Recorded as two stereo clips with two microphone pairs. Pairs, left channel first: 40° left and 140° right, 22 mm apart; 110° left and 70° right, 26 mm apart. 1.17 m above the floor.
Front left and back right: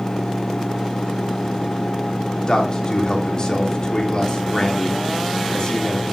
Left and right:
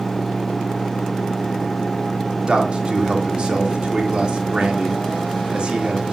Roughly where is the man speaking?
Ahead.